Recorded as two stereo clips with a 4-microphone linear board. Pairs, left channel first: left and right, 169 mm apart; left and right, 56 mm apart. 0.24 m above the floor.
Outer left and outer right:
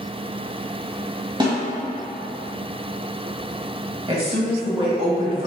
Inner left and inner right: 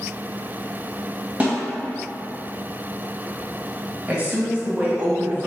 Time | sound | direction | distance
1.4 | a snare drum | 25° right (ahead or behind) | 1.5 m
4.1 | a woman speaking | 35° right (ahead or behind) | 1.1 m